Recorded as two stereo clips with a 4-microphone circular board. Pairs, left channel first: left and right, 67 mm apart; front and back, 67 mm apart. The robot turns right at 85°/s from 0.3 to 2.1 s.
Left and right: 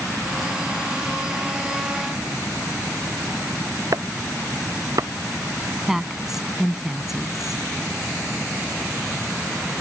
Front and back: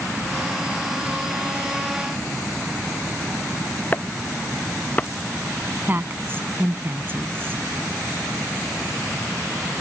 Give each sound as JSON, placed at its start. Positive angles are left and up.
{"t": 3.9, "sound": "chopping", "azimuth_deg": -65}
{"t": 5.9, "sound": "a woman speaking", "azimuth_deg": -170}